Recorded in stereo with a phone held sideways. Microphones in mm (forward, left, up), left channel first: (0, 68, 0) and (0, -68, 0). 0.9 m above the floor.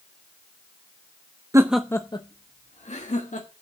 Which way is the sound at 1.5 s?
25° right (ahead or behind).